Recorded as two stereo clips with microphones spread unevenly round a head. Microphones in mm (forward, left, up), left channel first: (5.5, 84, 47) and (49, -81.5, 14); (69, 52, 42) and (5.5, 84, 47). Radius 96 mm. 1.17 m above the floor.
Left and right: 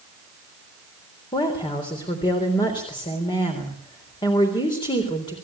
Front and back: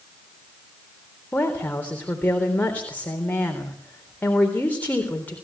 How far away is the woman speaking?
About 3.5 m.